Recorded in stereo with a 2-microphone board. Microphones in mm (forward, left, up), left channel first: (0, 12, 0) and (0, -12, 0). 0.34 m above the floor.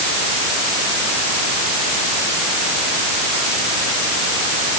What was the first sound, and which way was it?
Only background noise.